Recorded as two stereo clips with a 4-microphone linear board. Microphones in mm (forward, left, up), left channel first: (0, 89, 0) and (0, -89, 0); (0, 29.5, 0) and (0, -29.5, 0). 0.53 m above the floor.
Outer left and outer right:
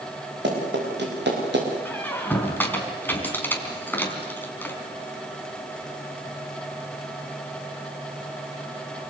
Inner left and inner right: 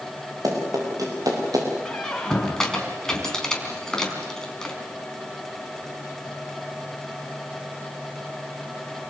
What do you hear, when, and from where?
0.4 s running footsteps: 80° right, 9.5 m; by 1.7 s 85° right, 8 m
1.9 s a squeak: 10° left (ahead or behind), 3.5 m